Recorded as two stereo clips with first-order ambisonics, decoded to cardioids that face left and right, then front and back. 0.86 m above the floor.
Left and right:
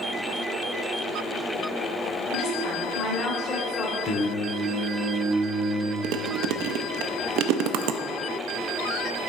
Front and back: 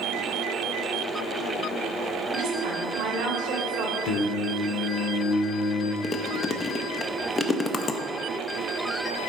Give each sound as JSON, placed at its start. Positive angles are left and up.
{"t": 2.3, "sound": "a woman speaking", "azimuth_deg": 145, "distance_m": 2.5}
{"t": 4.0, "sound": "singing", "azimuth_deg": 30, "distance_m": 1.0}
{"t": 6.0, "sound": "chewing", "azimuth_deg": -70, "distance_m": 0.5}